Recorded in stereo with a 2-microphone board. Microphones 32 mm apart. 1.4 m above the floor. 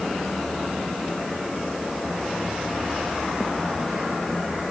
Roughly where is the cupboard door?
I don't hear a cupboard door.